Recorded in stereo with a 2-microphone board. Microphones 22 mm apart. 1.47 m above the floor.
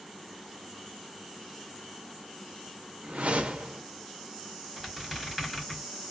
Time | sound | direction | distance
3.0 | a whoosh | 75° right (ahead or behind) | 0.6 m
4.8 | a squeak | 5° left (ahead or behind) | 1.6 m